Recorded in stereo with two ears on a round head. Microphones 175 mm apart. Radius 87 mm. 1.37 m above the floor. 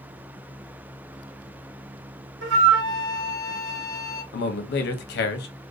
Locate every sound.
2.4 s a flute: 65° right (ahead or behind), 0.6 m
4.3 s a man speaking: 60° left (ahead or behind), 0.6 m